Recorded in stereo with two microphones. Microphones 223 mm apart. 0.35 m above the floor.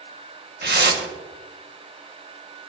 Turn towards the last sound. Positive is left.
turn(degrees=-50)  # may be behind; listen again after turning